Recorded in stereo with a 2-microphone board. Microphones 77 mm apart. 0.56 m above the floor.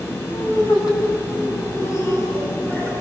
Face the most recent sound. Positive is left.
turn(degrees=20)  # may be behind; listen again after turning